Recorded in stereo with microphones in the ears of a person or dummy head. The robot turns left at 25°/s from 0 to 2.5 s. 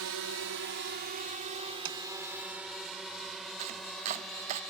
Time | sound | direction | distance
0.0 | a drone | 70° right (ahead or behind) | ?
1.9 | tapping | 70° right (ahead or behind) | ?
3.6 | chopping | 35° right (ahead or behind) | ?